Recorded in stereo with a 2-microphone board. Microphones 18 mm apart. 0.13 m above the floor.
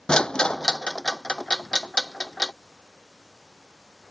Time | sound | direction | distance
0.1 | a rattle | 60° left (ahead or behind) | ?